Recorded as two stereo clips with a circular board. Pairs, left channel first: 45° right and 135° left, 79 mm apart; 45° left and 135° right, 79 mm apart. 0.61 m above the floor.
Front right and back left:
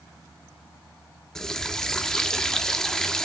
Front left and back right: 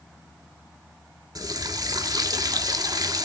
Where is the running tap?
125° right, 0.7 m.